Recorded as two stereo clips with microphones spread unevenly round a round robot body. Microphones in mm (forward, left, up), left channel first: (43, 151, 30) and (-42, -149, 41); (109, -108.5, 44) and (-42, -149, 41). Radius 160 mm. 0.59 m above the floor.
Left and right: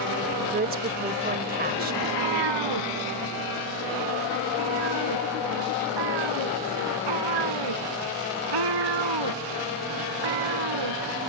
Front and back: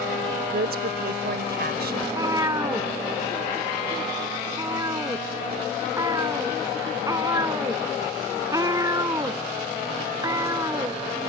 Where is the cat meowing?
95° right.